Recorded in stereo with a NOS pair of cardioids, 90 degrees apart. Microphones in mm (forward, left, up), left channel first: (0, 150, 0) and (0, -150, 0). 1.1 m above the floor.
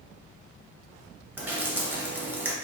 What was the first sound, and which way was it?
Dripping, 5° right.